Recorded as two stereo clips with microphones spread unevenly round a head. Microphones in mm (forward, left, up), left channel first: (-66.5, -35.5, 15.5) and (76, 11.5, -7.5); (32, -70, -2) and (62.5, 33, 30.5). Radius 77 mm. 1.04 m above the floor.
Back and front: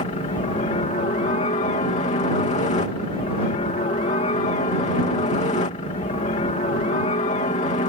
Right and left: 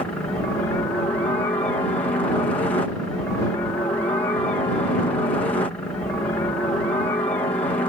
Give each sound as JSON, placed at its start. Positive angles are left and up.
{"t": 0.0, "sound": "a helicopter", "azimuth_deg": -150}